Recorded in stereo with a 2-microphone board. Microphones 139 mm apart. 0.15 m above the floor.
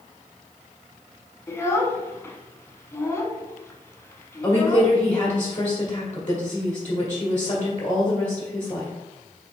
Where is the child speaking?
20° left (ahead or behind), 0.6 m.